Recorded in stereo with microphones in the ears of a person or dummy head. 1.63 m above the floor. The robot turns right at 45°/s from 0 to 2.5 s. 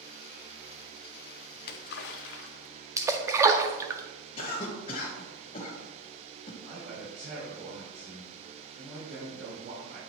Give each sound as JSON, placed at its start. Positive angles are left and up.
{"t": 1.6, "sound": "a splash", "azimuth_deg": 60, "distance_m": 0.6}
{"t": 3.0, "sound": "a splash", "side_deg": -15, "distance_m": 0.5}
{"t": 4.4, "sound": "a cough", "side_deg": 35, "distance_m": 1.2}
{"t": 6.6, "sound": "a man speaking", "side_deg": -70, "distance_m": 3.0}